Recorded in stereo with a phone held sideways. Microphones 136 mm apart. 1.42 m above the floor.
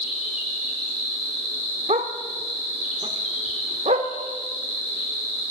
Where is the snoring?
No snoring in this recording.